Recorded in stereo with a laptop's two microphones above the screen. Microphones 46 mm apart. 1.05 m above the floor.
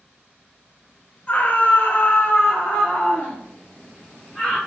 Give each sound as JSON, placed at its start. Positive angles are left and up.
{"t": 1.3, "sound": "a scream", "side_deg": 30, "distance_m": 0.6}